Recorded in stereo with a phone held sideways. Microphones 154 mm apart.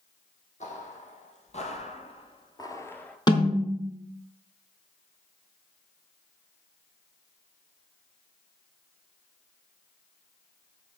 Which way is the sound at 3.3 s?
30° left (ahead or behind).